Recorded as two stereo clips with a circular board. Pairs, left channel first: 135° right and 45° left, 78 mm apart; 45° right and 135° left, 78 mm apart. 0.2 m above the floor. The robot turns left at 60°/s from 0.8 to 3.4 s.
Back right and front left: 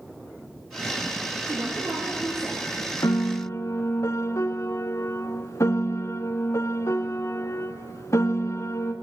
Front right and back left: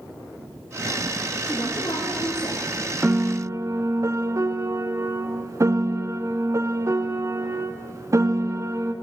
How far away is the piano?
About 0.7 m.